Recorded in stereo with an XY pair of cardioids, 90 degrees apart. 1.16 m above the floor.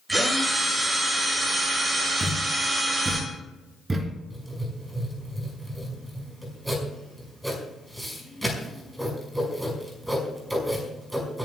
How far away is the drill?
About 6 m.